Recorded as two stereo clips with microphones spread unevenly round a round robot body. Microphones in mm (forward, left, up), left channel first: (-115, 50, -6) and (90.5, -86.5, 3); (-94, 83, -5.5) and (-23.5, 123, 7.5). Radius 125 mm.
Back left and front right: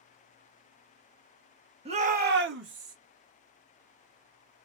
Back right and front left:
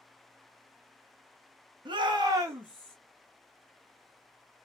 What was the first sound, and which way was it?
A shout, 30° left.